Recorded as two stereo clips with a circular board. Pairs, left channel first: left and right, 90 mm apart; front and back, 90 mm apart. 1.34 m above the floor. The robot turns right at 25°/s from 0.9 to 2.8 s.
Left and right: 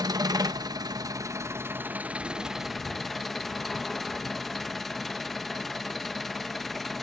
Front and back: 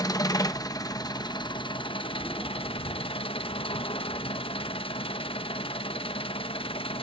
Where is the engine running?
45° right, 1.1 m; by 7.0 s straight ahead, 1.1 m.